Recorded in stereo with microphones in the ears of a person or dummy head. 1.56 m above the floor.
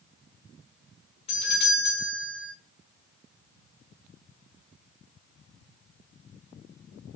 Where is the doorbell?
30° left (ahead or behind), 1.5 m.